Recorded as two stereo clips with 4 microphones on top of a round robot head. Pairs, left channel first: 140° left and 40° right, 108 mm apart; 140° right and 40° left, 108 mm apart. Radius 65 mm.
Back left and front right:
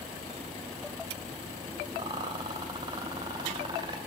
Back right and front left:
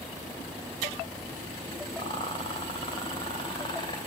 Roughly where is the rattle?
Right.